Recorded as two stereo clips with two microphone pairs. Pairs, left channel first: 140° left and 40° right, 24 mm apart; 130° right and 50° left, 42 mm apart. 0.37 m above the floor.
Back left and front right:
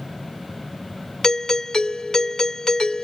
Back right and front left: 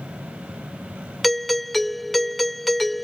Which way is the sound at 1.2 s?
150° left.